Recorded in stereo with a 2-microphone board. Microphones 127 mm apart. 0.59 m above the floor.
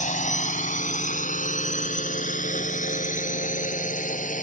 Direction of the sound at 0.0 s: 70° left (ahead or behind).